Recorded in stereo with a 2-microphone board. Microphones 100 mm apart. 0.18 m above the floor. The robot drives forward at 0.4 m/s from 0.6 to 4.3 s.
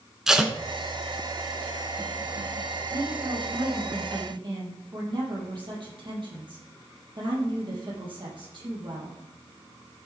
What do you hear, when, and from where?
0.3 s tape being pulled: 5° right (ahead or behind), 1.0 m
2.9 s a woman speaking: 45° right (ahead or behind), 4.5 m; by 9.2 s 50° right (ahead or behind), 4 m